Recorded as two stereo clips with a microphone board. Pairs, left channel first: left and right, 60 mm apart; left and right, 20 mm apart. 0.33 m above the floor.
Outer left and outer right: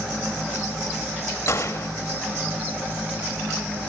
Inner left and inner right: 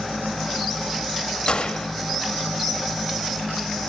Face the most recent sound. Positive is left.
turn(degrees=50)  # may be behind; listen again after turning